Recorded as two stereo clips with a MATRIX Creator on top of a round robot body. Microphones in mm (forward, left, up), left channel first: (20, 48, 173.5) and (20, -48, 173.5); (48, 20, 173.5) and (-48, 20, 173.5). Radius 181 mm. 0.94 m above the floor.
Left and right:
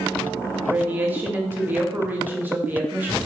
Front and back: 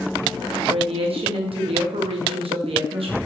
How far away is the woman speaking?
About 1.5 m.